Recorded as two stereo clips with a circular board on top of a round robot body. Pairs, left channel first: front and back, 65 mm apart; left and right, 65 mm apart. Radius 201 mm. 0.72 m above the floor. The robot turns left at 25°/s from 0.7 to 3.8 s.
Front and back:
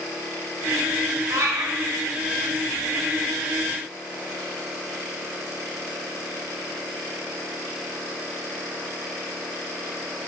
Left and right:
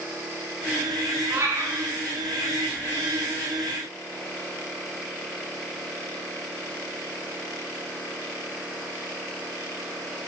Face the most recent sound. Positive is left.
turn(degrees=155)